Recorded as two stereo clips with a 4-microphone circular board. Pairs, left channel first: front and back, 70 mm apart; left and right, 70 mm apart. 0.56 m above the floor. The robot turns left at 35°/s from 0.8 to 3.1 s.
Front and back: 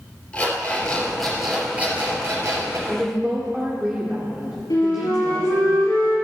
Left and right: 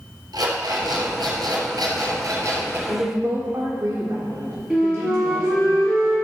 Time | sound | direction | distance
0.3 | an alarm clock | 70° right | 4.5 m
2.9 | a woman speaking | 100° right | 1.7 m
4.7 | a flute | 10° right | 4.5 m